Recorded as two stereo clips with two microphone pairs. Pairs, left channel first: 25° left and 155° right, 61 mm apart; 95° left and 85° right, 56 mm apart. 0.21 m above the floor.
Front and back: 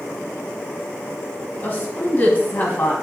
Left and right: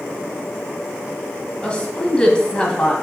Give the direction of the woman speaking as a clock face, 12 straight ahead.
11 o'clock.